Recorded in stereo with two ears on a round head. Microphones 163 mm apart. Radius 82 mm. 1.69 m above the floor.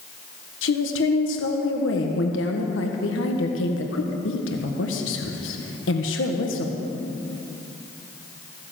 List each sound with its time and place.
0.6 s a woman speaking: 75° left (ahead or behind), 1.4 m